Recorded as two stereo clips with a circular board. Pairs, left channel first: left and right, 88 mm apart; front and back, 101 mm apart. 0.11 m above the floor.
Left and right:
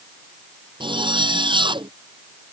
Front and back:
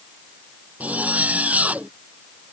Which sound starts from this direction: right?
A zipper, at 0.8 s.